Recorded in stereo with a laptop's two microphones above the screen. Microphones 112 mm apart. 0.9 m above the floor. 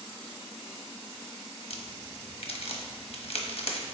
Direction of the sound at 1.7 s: 60° left (ahead or behind).